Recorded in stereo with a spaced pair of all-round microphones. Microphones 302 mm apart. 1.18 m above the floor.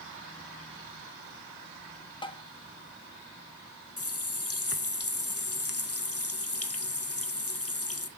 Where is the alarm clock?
No alarm clock in this recording.